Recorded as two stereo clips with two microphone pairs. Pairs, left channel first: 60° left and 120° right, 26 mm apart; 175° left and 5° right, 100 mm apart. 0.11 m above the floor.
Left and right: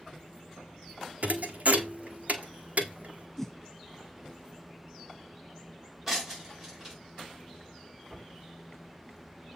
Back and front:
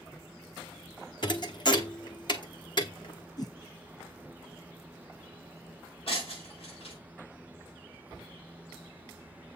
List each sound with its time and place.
1.2 s a thud: 140° right, 1.1 m
3.4 s a whoosh: 140° left, 0.5 m
6.1 s breaking glass: 160° left, 5.5 m